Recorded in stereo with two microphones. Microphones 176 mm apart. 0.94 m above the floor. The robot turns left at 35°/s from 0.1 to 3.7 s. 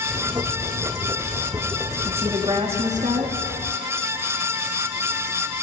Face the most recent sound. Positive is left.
turn(degrees=-70)